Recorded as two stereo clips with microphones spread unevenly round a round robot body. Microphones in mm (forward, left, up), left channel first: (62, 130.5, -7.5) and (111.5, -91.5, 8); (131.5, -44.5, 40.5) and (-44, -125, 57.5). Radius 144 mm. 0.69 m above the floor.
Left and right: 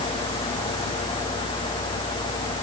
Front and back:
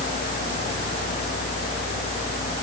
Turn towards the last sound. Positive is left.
No sound to turn to.